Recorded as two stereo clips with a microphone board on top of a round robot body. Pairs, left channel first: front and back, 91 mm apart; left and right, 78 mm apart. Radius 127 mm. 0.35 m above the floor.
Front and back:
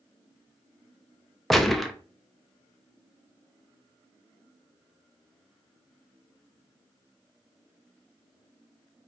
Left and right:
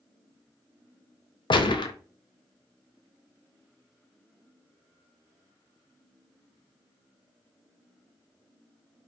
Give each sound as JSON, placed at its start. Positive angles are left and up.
{"t": 1.5, "sound": "a gunshot", "azimuth_deg": 90, "distance_m": 0.8}